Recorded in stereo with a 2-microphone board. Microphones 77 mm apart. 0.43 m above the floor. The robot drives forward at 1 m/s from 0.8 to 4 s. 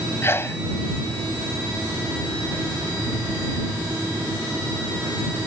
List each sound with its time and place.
0.2 s a sneeze: 30° left (ahead or behind)